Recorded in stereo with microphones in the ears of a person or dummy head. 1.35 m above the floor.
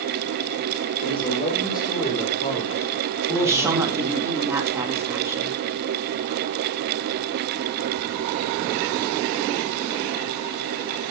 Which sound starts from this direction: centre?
A woman speaking, at 3.4 s.